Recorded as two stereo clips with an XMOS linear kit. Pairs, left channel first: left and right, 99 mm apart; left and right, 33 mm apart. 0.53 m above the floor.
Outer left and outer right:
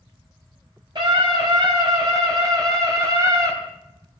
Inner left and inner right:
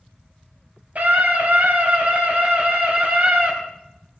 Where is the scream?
50° right (ahead or behind), 4 m; by 3.5 s 30° right (ahead or behind), 3.5 m.